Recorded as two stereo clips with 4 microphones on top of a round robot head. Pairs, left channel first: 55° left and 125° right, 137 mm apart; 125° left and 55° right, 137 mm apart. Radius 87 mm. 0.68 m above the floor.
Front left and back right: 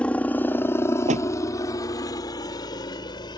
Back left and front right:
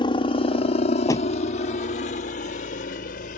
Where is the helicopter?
130° left; by 3.4 s 110° left.